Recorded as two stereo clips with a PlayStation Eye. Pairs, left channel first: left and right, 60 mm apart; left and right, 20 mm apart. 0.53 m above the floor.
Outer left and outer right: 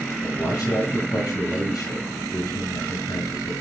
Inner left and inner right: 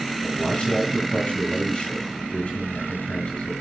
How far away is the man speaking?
About 7 m.